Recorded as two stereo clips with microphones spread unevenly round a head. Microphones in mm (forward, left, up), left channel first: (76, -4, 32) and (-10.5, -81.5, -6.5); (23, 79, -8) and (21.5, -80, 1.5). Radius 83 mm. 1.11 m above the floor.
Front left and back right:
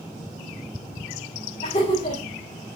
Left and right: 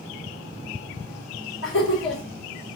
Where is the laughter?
95° left, 4 m.